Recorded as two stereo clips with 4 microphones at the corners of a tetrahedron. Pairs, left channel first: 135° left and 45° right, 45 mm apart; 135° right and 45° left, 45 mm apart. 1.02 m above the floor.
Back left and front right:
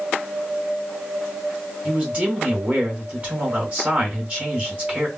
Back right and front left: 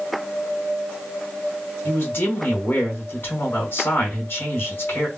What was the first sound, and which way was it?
A man speaking, 100° right.